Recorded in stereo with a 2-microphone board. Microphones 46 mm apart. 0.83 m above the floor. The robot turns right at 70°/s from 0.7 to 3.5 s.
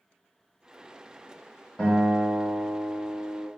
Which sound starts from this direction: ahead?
A guitar, at 1.8 s.